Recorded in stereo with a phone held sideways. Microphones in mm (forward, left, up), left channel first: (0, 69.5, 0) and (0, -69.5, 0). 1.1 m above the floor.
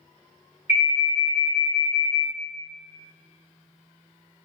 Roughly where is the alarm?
Right.